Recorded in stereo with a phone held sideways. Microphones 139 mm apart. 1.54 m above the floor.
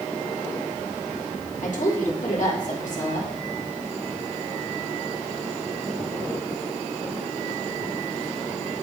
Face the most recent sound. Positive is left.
turn(degrees=65)  # may be behind; listen again after turning